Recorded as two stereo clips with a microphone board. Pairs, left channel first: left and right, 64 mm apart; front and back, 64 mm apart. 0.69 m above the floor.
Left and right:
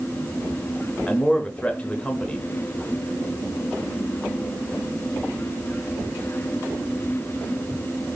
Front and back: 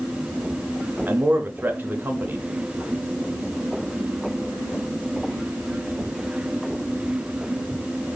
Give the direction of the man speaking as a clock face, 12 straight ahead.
7 o'clock.